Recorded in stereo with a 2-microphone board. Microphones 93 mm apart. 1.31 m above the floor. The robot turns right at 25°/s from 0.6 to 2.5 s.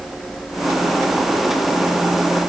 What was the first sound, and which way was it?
Only background noise.